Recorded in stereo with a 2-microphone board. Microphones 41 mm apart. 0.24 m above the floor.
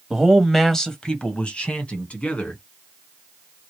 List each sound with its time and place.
0.1 s a man speaking: 10° right (ahead or behind), 1.0 m; by 2.6 s 35° left (ahead or behind), 2 m